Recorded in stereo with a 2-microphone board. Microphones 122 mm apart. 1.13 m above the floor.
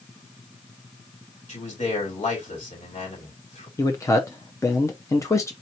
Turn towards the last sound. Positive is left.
turn(degrees=25)  # may be behind; listen again after turning